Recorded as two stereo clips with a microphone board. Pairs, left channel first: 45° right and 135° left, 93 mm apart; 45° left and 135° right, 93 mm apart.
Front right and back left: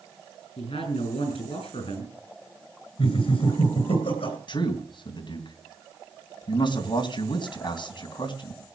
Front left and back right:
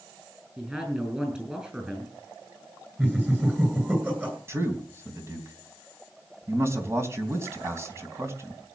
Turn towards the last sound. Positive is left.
turn(degrees=-75)